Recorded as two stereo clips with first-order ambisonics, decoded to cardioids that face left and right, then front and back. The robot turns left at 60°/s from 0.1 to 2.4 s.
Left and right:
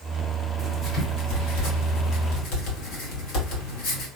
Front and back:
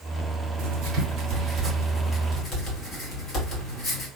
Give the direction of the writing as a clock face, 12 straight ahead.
6 o'clock.